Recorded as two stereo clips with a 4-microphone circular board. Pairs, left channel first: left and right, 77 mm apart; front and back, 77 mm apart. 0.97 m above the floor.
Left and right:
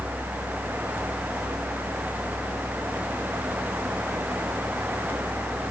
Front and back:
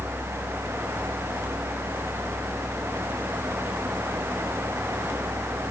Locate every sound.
Only background noise.